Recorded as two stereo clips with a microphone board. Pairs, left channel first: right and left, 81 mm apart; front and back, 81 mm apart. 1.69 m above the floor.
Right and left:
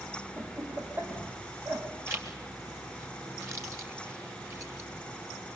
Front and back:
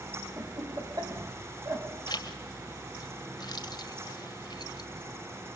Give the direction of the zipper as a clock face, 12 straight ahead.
11 o'clock.